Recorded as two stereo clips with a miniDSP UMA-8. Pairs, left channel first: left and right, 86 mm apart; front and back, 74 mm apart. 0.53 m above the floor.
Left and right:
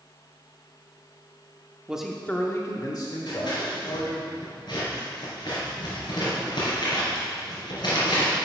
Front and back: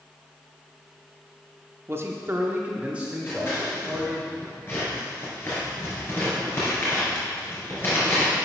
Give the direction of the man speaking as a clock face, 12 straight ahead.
5 o'clock.